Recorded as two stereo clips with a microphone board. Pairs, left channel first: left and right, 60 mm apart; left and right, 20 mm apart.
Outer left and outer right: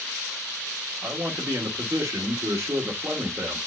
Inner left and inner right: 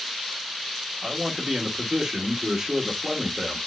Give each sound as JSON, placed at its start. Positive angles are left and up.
{"t": 1.0, "sound": "a man speaking", "side_deg": -50, "distance_m": 1.3}